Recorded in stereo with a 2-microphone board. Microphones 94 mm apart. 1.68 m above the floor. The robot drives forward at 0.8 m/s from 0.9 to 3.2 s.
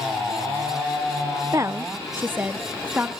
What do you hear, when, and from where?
1.5 s a woman speaking: 35° right (ahead or behind), 0.6 m; by 3.1 s 15° right (ahead or behind), 1.5 m